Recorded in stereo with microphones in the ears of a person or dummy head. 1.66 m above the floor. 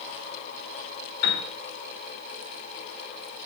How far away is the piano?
About 2.5 m.